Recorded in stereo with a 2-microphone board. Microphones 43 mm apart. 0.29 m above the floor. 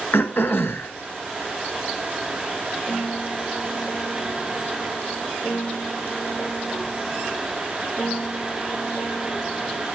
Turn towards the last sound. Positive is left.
turn(degrees=30)  # may be behind; listen again after turning